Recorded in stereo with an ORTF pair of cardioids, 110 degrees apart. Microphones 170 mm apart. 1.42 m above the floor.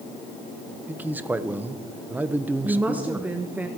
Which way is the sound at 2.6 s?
10° right.